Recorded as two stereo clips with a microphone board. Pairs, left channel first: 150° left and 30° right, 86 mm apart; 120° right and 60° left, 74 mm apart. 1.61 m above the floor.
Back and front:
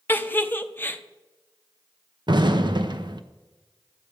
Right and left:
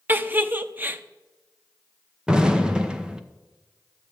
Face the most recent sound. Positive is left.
turn(degrees=-20)